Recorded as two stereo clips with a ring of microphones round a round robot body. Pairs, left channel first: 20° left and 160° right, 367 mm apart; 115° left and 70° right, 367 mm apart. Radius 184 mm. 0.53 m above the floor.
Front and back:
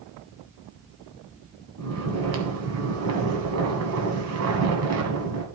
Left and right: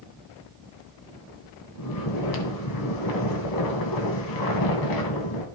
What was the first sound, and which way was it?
Snoring, 150° left.